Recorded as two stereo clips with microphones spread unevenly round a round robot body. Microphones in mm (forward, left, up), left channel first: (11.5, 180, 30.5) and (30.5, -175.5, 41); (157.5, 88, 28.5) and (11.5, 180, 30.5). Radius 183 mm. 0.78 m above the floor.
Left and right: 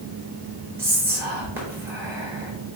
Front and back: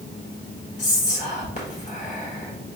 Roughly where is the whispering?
Ahead.